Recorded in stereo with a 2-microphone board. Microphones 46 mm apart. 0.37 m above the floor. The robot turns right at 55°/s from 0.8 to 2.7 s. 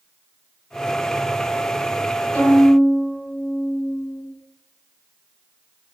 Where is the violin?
25° left (ahead or behind), 1.2 m; by 4.2 s 10° left (ahead or behind), 1.2 m.